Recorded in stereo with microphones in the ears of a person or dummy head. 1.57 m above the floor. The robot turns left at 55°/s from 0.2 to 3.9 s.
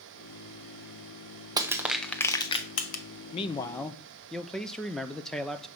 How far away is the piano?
No piano in this recording.